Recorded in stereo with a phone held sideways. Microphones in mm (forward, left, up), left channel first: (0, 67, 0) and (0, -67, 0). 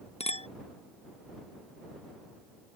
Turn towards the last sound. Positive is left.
turn(degrees=50)  # may be behind; listen again after turning